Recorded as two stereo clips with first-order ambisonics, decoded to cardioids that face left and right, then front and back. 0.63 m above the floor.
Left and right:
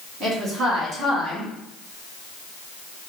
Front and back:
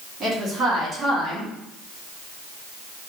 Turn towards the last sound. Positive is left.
turn(degrees=-115)